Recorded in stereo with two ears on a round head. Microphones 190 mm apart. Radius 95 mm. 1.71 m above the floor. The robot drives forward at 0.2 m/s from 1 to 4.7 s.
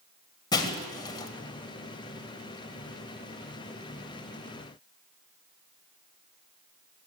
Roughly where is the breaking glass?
Left.